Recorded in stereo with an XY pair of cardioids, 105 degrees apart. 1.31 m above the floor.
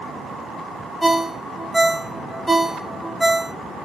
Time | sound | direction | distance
1.0 | a ringtone | 5° right | 0.6 m